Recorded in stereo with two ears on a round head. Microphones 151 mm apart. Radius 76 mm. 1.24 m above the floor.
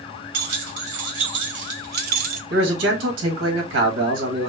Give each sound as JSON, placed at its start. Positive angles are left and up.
{"t": 0.3, "sound": "keys jangling", "side_deg": -85, "distance_m": 2.0}
{"t": 2.5, "sound": "a man speaking", "side_deg": -90, "distance_m": 1.8}